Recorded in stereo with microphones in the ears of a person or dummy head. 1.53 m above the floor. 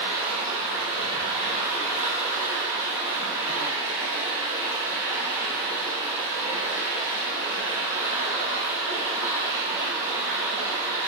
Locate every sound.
0.0 s running water: 15° right (ahead or behind), 0.9 m